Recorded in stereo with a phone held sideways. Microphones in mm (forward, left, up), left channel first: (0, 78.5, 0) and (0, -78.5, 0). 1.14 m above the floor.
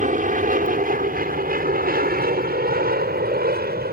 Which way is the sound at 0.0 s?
55° right (ahead or behind).